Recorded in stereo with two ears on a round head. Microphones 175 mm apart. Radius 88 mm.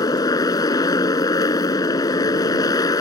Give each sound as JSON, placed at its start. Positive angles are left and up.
{"t": 0.0, "sound": "a motorcycle", "side_deg": 20}